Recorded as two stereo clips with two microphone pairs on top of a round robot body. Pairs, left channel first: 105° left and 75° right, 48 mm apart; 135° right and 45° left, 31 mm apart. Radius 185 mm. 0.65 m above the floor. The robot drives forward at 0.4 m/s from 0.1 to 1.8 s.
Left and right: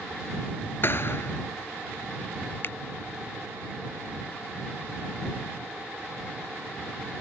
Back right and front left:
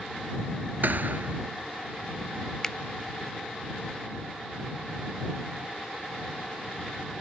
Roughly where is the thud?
Ahead left.